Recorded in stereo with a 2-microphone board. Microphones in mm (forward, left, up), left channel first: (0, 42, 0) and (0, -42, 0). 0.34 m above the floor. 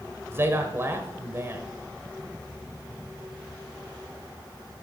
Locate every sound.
0.3 s a man speaking: 30° right (ahead or behind), 1.2 m